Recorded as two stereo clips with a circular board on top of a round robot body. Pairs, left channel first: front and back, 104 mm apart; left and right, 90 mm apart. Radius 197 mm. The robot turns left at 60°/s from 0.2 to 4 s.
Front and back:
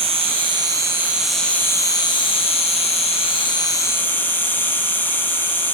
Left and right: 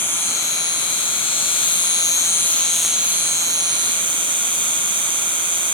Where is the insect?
155° left, 3.5 m; by 5.8 s 70° right, 3.5 m.